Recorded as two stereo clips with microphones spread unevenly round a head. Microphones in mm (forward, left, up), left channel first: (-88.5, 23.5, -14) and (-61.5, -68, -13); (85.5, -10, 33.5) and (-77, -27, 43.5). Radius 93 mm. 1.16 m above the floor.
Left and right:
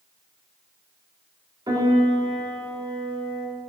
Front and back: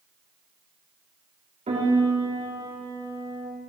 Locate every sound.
1.7 s a piano: 120° right, 4 m